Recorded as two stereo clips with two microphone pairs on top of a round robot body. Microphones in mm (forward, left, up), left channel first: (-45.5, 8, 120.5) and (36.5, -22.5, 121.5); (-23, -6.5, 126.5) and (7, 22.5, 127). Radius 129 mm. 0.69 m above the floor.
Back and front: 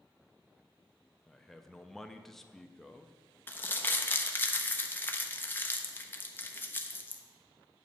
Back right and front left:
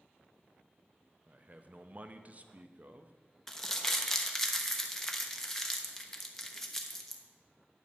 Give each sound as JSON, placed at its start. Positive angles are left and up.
{"t": 1.3, "sound": "a man speaking", "azimuth_deg": 75, "distance_m": 0.8}
{"t": 3.5, "sound": "crumpling", "azimuth_deg": 150, "distance_m": 1.2}